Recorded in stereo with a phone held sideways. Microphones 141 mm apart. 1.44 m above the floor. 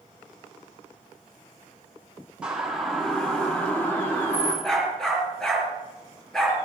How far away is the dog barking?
About 6 m.